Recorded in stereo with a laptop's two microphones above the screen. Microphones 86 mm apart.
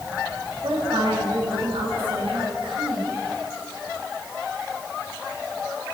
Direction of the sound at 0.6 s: 80° right.